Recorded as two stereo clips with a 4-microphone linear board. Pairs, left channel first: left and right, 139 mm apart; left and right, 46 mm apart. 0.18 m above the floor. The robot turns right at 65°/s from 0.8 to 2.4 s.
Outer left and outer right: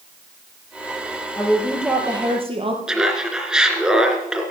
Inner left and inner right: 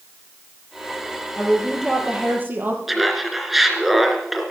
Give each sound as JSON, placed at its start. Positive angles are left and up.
{"t": 1.4, "sound": "a woman speaking", "azimuth_deg": 155, "distance_m": 4.5}
{"t": 2.9, "sound": "laughter", "side_deg": -5, "distance_m": 2.5}